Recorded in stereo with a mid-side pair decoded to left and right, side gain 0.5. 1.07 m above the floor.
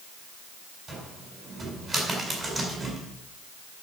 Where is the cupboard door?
25° right, 5 m.